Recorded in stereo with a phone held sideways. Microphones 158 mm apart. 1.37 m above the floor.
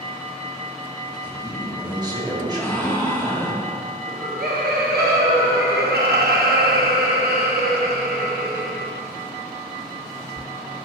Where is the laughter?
80° right, 1.1 m.